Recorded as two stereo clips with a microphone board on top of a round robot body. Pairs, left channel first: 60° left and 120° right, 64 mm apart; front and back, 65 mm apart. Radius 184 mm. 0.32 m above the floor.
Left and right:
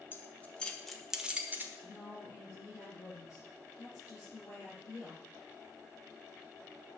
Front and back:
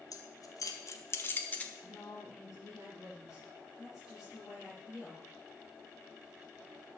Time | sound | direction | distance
0.1 | keys jangling | 5° left | 1.8 m
1.8 | a woman speaking | 100° left | 6.5 m